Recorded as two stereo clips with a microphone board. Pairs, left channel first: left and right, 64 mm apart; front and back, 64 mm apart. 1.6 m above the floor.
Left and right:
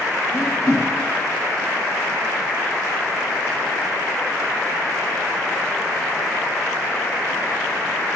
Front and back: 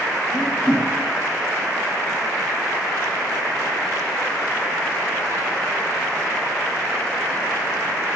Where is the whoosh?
70° left, 2.0 m.